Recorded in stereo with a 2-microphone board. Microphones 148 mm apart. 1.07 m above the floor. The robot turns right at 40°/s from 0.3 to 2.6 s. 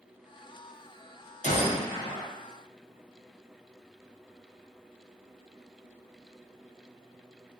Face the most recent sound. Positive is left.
turn(degrees=170)